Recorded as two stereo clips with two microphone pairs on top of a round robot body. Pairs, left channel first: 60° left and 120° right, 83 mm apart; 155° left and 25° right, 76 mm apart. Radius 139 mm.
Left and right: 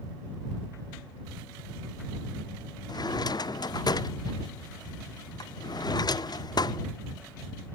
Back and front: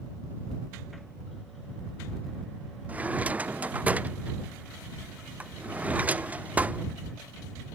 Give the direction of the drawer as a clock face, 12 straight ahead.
11 o'clock.